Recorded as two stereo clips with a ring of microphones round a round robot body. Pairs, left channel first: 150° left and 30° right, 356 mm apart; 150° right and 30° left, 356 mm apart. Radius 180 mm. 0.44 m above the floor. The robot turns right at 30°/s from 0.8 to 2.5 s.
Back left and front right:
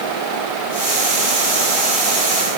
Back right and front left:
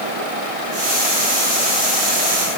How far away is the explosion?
No explosion in this recording.